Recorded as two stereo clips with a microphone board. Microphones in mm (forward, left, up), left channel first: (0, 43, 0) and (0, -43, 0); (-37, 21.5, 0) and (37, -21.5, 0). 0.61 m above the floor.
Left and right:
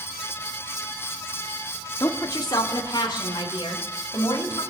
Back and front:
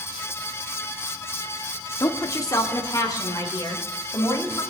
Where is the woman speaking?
115° left, 1.2 m; by 4.6 s 110° left, 3.5 m.